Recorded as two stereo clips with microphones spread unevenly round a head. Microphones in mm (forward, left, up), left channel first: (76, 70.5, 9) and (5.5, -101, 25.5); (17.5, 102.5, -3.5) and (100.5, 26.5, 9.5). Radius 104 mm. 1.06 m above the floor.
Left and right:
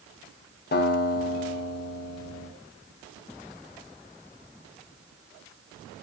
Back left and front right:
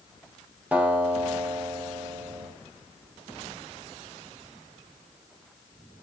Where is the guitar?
30° left, 3 m.